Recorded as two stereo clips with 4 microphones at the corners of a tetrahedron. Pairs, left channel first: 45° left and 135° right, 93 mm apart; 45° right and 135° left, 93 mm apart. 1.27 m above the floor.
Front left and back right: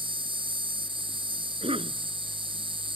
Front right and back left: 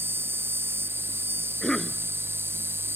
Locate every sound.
0.0 s an insect: 160° right
1.6 s a cough: 130° right